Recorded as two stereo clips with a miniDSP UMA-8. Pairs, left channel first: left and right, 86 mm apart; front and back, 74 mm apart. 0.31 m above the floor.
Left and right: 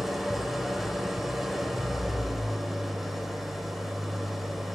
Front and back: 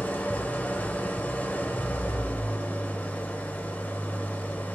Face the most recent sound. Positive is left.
turn(degrees=-5)